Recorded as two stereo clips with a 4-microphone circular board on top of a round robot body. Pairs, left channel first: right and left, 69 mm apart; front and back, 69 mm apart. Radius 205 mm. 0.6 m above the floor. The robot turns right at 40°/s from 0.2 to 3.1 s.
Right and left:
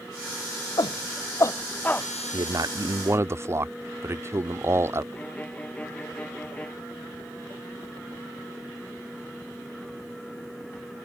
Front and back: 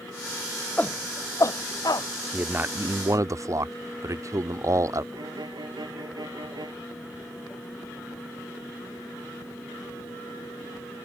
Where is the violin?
160° right.